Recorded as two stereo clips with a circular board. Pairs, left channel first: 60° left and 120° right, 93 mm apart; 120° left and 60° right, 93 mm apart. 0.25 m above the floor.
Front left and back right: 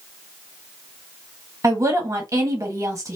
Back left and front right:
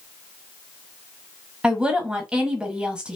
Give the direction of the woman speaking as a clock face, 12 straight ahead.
4 o'clock.